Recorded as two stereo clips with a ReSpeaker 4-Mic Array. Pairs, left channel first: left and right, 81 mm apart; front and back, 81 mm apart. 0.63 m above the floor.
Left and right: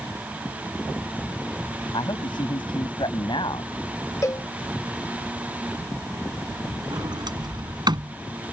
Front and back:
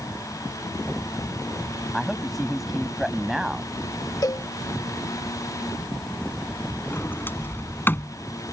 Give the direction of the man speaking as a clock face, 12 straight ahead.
9 o'clock.